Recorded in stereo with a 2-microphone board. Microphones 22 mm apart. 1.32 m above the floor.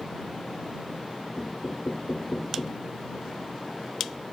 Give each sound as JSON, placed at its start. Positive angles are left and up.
{"t": 1.4, "sound": "knocking", "side_deg": 30}